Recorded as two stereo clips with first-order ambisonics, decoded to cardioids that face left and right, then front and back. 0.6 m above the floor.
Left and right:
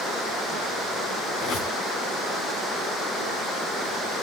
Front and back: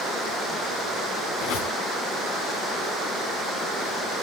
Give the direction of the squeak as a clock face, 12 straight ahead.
11 o'clock.